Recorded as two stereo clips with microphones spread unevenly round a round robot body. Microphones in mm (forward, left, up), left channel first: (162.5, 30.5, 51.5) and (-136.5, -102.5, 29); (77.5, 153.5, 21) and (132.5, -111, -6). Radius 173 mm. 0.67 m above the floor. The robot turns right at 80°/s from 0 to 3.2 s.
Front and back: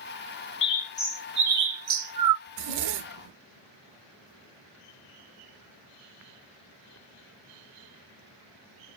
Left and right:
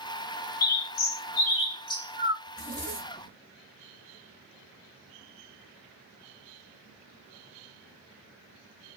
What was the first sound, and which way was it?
A bird, 75° left.